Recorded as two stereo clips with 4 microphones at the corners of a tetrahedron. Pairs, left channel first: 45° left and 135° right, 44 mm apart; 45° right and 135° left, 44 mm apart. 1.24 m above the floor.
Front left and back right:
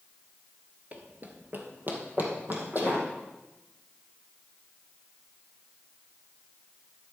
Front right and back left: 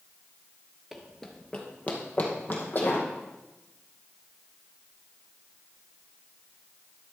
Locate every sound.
0.9 s running footsteps: 140° right, 1.3 m; by 3.0 s 90° right, 3.5 m